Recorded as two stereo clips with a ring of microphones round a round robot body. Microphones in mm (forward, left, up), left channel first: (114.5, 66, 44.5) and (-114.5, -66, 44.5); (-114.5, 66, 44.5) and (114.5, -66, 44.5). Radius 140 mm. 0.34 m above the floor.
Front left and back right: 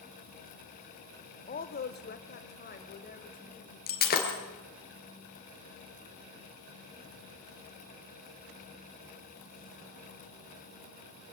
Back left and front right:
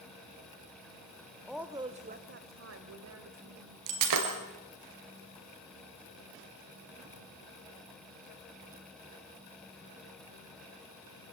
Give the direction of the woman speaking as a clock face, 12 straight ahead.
10 o'clock.